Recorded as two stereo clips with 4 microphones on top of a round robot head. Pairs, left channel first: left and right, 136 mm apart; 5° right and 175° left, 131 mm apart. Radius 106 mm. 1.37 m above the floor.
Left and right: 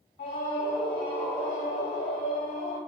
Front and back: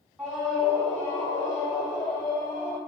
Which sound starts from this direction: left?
A scream, at 0.2 s.